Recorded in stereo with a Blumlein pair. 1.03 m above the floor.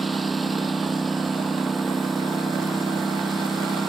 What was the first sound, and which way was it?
A lawn mower, 10° right.